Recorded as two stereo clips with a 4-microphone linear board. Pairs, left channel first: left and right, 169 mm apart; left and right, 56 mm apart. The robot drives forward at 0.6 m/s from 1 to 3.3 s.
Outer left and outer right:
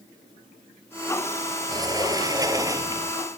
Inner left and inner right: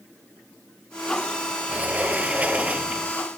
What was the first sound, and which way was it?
A sliding door, 25° right (ahead or behind).